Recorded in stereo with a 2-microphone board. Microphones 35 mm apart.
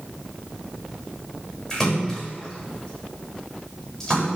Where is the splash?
10° left (ahead or behind), 8 m.